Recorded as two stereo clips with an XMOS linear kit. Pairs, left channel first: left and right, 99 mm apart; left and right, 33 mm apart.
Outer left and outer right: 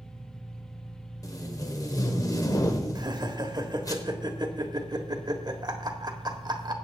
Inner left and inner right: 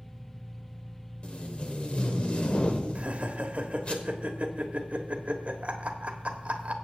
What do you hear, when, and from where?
0.0 s an engine running: centre (ahead or behind), 4 m
1.2 s tape being pulled: 35° left (ahead or behind), 1.2 m
3.0 s laughter: 45° right (ahead or behind), 1.3 m